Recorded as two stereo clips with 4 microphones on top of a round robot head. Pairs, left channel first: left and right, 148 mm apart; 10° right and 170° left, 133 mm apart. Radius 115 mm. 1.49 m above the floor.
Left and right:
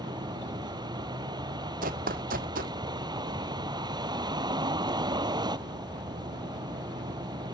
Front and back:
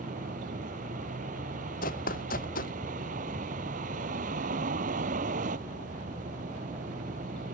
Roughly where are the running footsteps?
Ahead right.